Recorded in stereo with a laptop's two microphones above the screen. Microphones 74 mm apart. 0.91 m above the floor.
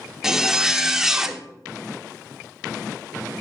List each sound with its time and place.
0.2 s a zipper: 5° right (ahead or behind), 0.5 m